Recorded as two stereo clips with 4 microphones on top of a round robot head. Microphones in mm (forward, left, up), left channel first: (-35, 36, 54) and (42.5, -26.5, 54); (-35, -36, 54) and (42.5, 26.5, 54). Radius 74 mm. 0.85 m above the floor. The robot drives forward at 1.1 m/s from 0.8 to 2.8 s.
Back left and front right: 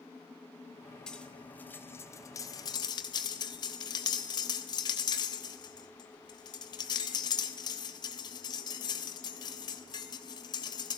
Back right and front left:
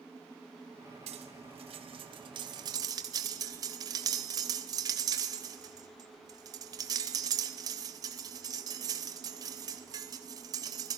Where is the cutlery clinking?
55° left, 3.5 m; by 11.0 s 95° left, 3 m.